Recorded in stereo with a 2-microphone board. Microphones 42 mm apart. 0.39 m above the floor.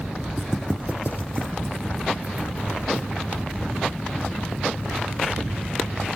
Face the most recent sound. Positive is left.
turn(degrees=-45)  # may be behind; listen again after turning